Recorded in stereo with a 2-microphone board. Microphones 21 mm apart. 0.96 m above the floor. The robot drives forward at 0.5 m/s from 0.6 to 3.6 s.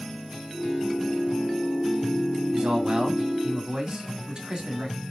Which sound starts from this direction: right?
A man speaking, at 2.5 s.